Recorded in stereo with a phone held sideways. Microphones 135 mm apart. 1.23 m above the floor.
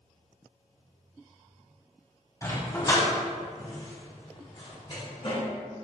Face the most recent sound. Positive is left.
turn(degrees=50)  # may be behind; listen again after turning